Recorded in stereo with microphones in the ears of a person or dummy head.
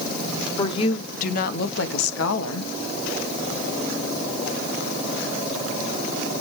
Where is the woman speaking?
25° left (ahead or behind), 1.1 m; by 2.7 s 85° left, 1.7 m.